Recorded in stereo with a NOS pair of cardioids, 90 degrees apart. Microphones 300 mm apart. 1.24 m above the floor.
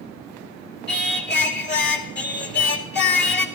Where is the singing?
35° left, 3 m.